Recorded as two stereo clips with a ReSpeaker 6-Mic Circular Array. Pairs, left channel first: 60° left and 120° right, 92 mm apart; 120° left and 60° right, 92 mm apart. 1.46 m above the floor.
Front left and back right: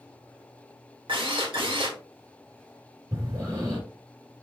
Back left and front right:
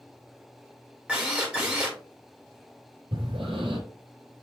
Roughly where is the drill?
Behind right.